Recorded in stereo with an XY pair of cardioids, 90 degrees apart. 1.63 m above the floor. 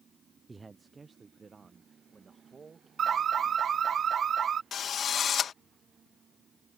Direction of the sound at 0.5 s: 25° right.